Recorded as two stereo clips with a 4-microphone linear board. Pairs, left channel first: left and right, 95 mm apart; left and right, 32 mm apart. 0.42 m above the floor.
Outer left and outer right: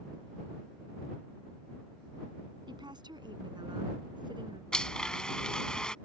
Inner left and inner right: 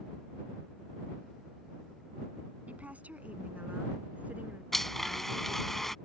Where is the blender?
10° left (ahead or behind).